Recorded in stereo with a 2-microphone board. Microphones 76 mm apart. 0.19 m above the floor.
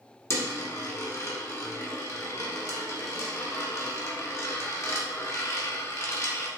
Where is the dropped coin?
40° left (ahead or behind), 0.9 m.